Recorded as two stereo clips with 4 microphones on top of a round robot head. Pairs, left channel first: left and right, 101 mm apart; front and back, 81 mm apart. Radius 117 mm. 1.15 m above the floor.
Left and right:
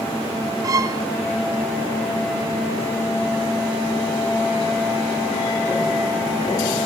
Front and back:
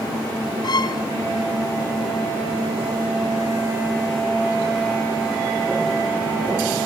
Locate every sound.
0.6 s a violin: 35° right, 0.9 m